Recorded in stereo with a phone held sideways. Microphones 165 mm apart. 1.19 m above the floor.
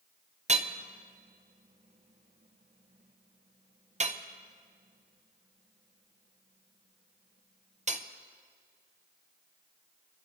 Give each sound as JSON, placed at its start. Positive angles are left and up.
{"t": 0.5, "sound": "hammering", "side_deg": -45, "distance_m": 0.6}